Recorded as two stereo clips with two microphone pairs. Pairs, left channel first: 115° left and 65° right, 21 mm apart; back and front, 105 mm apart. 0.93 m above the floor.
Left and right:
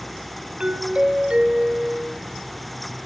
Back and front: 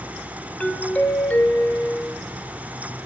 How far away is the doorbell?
About 1.6 m.